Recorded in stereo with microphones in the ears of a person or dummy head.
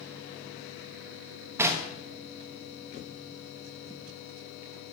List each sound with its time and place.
1.6 s knocking: 15° right (ahead or behind), 1.3 m